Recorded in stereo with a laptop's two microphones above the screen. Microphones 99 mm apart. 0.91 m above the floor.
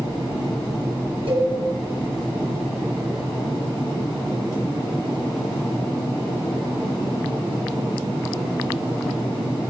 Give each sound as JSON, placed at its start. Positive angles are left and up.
{"t": 1.3, "sound": "a cowbell", "side_deg": -80, "distance_m": 4.0}